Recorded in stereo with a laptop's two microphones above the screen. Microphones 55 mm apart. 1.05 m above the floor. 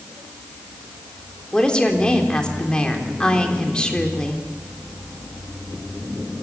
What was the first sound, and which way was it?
A woman speaking, 15° left (ahead or behind).